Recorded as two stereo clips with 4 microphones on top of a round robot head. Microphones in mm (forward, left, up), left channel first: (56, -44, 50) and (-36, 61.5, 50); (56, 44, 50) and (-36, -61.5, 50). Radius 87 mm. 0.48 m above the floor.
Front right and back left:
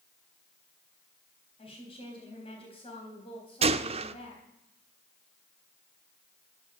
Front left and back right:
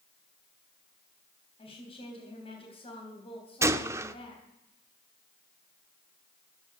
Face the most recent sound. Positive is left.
turn(degrees=165)